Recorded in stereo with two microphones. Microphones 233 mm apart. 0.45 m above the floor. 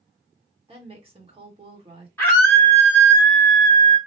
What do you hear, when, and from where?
0.7 s a woman speaking: 25° right (ahead or behind), 1.4 m
2.2 s a scream: 10° left (ahead or behind), 0.9 m